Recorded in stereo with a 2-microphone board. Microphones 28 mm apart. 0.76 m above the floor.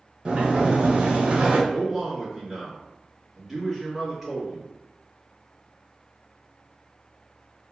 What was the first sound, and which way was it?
A sliding door, 35° right (ahead or behind).